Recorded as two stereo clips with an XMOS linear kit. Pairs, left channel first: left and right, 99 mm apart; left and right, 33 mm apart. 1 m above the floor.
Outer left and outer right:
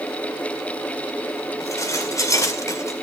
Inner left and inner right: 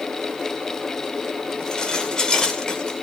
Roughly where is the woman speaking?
No woman speaking in this recording.